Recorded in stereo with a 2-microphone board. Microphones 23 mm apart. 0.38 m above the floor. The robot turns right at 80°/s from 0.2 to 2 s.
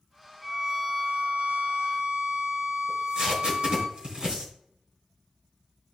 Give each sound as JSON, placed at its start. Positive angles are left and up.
{"t": 0.4, "sound": "a violin", "side_deg": 5, "distance_m": 1.2}
{"t": 2.9, "sound": "tape being pulled", "side_deg": -40, "distance_m": 3.5}